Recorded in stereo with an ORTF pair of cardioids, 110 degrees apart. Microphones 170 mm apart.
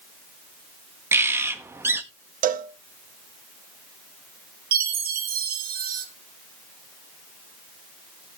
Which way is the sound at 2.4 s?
55° right.